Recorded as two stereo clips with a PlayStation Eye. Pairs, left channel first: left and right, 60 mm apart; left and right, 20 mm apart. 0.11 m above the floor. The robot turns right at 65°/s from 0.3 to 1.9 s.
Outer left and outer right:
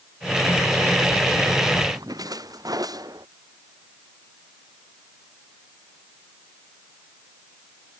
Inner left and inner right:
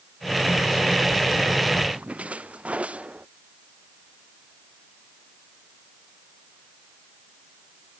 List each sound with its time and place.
1.9 s a splash: 85° right